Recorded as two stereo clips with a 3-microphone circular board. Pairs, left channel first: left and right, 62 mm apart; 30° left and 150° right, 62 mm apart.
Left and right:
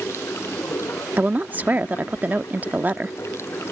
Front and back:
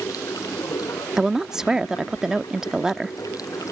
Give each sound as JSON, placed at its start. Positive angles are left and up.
{"t": 0.0, "sound": "running water", "azimuth_deg": 45}
{"t": 1.2, "sound": "a woman speaking", "azimuth_deg": -80}